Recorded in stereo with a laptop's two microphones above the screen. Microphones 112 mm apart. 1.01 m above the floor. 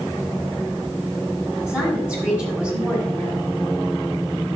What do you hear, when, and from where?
1.7 s a woman speaking: 15° right (ahead or behind), 7 m; by 3.5 s 10° right (ahead or behind), 8.5 m